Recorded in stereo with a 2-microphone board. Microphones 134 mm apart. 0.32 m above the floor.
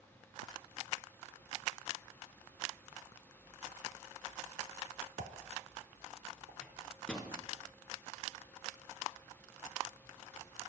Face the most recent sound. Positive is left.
turn(degrees=5)  # may be behind; listen again after turning